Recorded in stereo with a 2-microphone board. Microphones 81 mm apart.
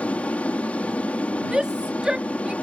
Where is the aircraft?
15° left (ahead or behind).